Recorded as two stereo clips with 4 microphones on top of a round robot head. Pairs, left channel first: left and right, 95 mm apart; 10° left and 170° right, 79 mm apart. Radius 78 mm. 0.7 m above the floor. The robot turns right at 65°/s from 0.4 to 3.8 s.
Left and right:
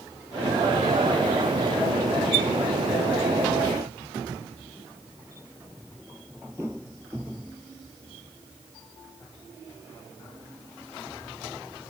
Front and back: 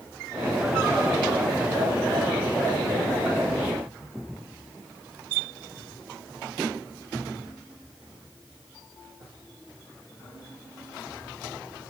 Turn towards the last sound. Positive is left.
No sound to turn to.